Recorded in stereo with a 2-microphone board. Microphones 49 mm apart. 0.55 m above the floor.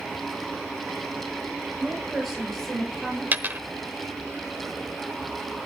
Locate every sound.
1.8 s a woman speaking: 5° right (ahead or behind), 10 m; by 3.2 s centre (ahead or behind), 10.5 m
3.3 s a dropped coin: 35° right (ahead or behind), 1.0 m